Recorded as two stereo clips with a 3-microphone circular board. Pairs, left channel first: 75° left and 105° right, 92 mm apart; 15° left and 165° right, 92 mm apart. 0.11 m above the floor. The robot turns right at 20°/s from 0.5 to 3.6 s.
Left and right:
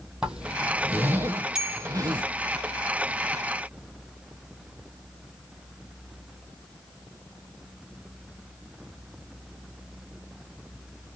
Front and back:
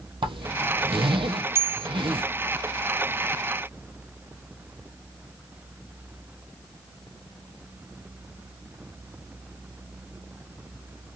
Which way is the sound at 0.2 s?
175° left.